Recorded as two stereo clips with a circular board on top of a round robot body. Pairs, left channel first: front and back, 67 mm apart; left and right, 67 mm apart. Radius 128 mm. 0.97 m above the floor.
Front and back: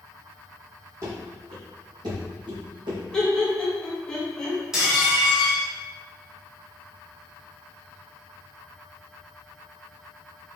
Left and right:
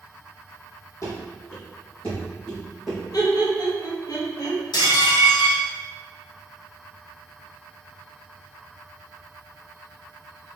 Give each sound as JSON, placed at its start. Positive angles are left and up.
{"t": 1.0, "sound": "running footsteps", "azimuth_deg": 135, "distance_m": 1.9}
{"t": 3.1, "sound": "laughter", "azimuth_deg": 80, "distance_m": 2.0}
{"t": 4.7, "sound": "dishes clattering", "azimuth_deg": 95, "distance_m": 1.5}